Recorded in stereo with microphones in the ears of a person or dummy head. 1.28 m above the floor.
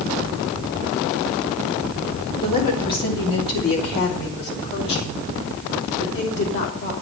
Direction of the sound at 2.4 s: 15° left (ahead or behind).